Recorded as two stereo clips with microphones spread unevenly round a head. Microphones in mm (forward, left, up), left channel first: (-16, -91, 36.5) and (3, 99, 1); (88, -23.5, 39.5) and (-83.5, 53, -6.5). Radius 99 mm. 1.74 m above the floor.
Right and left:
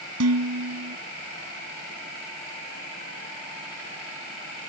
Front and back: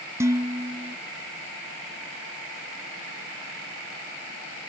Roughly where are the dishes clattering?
Left.